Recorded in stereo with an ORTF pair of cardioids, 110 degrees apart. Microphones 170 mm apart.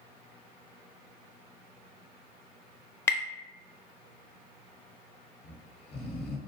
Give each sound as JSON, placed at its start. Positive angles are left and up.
{"t": 3.1, "sound": "tapping", "azimuth_deg": 15, "distance_m": 0.5}
{"t": 5.4, "sound": "snoring", "azimuth_deg": 35, "distance_m": 0.5}